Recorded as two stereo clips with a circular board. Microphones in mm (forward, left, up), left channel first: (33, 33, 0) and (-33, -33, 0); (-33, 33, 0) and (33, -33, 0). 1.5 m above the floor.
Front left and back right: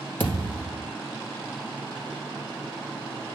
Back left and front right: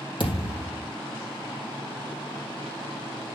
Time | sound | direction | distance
0.2 | a thud | 115° left | 3 m